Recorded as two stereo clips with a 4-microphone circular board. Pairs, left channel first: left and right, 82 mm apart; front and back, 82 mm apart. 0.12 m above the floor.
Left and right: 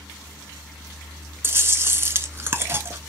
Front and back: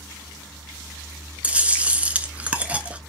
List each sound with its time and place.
1.4 s chewing: 120° right, 0.5 m